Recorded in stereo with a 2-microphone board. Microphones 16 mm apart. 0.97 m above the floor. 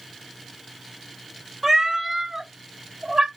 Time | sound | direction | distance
1.6 | a cat meowing | 15° right (ahead or behind) | 1.2 m